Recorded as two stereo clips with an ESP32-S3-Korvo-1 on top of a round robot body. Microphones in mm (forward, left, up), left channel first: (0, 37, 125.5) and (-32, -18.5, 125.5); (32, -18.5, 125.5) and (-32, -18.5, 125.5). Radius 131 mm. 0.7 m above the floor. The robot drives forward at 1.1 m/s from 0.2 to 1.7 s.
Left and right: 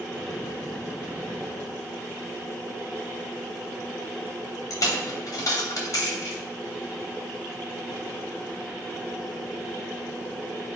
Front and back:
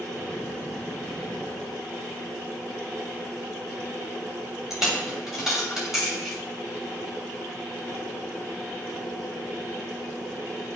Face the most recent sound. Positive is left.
turn(degrees=95)